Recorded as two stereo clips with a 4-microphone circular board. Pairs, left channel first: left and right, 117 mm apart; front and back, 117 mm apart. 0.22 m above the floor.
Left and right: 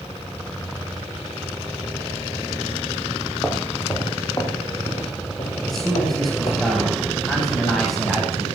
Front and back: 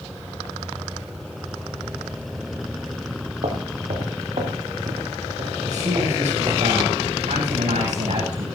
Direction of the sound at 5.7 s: 175° left.